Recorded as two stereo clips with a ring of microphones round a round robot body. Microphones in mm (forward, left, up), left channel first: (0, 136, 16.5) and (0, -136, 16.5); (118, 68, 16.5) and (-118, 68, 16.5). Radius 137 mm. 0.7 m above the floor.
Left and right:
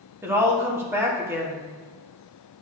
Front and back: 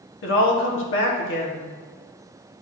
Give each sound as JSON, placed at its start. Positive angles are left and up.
{"t": 0.2, "sound": "a woman speaking", "azimuth_deg": -10, "distance_m": 1.4}